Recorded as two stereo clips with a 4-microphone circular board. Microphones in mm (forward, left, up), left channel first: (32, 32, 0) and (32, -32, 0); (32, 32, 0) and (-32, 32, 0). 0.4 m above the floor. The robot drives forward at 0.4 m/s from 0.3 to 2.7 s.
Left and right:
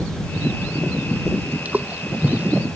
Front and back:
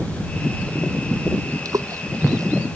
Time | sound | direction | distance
1.6 | a splash | 155° right | ?